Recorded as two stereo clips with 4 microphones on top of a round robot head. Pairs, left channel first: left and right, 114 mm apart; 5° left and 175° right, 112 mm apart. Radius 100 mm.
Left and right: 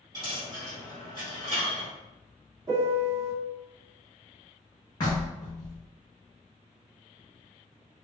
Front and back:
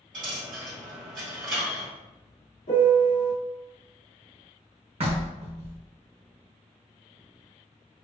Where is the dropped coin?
160° right, 1.8 m.